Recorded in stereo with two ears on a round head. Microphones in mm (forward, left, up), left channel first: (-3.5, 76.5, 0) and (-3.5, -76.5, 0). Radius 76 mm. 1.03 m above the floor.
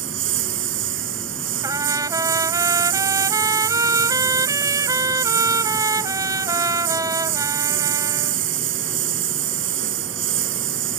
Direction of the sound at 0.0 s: 85° right.